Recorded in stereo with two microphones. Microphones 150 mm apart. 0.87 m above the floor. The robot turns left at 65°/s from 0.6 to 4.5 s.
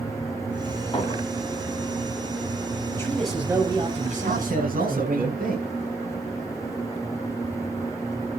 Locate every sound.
0.9 s a clink: 35° left (ahead or behind), 5 m; by 1.2 s 50° left (ahead or behind), 5 m
2.9 s a man speaking: 25° left, 5 m; by 5.2 s 80° right, 5 m
4.2 s a man speaking: 60° right (ahead or behind), 7 m; by 5.7 s 75° right (ahead or behind), 7 m